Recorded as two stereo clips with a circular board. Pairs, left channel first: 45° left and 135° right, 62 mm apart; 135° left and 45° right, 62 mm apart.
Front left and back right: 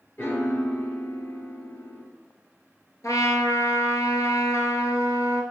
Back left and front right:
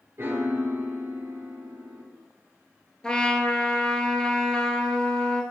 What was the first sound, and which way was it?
A piano, straight ahead.